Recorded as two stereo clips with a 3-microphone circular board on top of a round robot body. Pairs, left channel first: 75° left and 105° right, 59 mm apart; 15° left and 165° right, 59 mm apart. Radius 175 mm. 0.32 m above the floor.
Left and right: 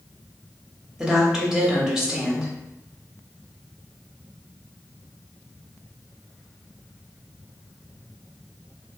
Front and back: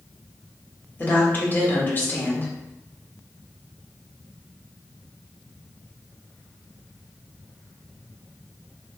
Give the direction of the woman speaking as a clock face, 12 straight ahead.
1 o'clock.